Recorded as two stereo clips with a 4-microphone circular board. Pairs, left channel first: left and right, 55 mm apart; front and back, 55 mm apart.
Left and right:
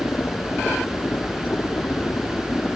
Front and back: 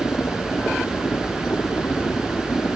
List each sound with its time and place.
0.0 s a helicopter: 40° left